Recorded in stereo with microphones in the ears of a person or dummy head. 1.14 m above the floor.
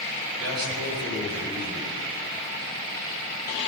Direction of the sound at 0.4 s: 90° right.